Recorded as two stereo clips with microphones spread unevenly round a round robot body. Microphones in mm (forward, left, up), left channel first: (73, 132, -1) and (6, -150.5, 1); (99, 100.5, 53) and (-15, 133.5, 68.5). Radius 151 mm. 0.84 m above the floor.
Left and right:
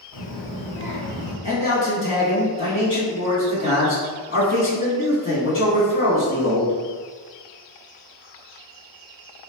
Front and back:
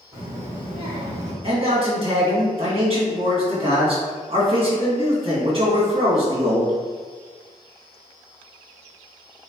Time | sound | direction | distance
0.1 | a child speaking | 105° left | 1.6 m
1.4 | a man speaking | 120° left | 1.8 m